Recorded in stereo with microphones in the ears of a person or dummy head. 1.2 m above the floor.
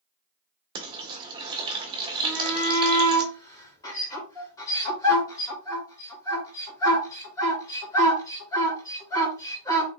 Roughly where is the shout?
Centre.